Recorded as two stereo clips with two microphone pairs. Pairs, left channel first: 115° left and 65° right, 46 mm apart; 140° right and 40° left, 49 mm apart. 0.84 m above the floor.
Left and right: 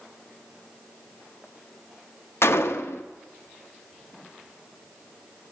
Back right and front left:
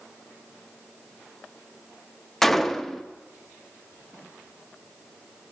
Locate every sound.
2.4 s a gunshot: 135° left, 0.5 m